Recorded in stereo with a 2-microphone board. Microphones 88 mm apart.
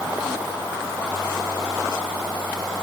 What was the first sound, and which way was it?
Only background noise.